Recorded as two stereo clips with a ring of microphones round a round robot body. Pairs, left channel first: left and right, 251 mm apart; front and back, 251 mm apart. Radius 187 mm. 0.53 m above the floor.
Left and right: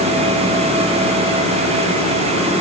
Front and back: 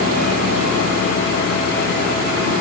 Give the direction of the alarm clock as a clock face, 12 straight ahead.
No alarm clock in this recording.